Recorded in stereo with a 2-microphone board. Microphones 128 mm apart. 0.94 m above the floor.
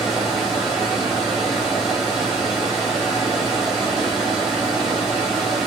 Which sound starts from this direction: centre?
Running water, at 0.0 s.